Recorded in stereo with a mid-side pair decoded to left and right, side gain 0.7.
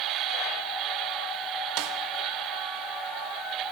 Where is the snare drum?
65° right, 2 m.